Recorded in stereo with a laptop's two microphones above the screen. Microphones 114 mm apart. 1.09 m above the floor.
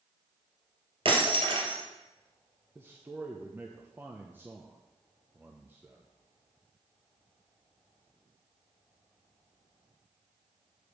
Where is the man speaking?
20° right (ahead or behind), 0.8 m.